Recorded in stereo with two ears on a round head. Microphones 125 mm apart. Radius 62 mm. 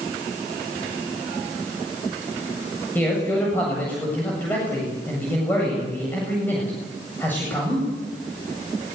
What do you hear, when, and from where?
3.0 s a man speaking: 15° left (ahead or behind), 8 m